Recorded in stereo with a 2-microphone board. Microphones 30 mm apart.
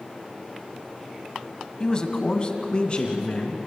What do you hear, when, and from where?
1.8 s a man speaking: 25° left (ahead or behind), 1.6 m; by 3.6 s 35° left (ahead or behind), 3.5 m